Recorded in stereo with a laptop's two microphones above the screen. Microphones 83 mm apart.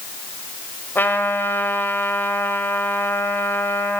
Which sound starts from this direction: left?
A trumpet, at 0.9 s.